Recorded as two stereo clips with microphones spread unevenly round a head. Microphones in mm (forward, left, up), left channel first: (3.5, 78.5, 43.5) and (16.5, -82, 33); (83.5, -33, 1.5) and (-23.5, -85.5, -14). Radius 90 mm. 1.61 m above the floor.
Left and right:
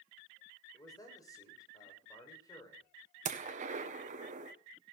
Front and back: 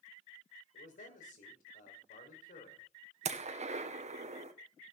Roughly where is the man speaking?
Ahead left.